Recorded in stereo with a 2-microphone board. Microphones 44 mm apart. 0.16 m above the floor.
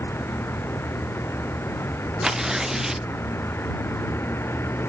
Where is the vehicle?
70° left (ahead or behind).